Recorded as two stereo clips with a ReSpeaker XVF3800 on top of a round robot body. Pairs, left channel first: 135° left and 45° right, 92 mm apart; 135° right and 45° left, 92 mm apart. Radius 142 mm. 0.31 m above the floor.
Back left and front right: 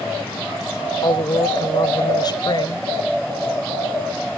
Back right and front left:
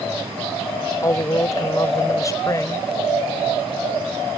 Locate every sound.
1.0 s a woman speaking: 175° left